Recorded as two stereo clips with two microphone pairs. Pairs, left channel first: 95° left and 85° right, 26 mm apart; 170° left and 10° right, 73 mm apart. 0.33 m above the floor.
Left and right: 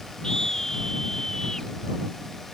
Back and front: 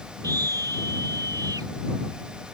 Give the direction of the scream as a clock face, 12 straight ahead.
11 o'clock.